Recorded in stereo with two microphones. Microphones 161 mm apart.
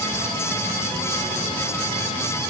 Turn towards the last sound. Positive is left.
No sound to turn to.